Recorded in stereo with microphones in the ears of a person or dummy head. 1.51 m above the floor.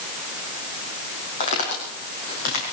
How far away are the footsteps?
About 4.5 m.